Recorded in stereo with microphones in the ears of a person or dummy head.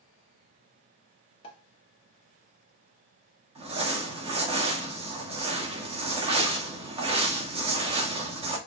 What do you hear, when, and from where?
1.4 s a pop: 35° left (ahead or behind), 1.1 m
3.5 s crumpling: 30° right (ahead or behind), 1.0 m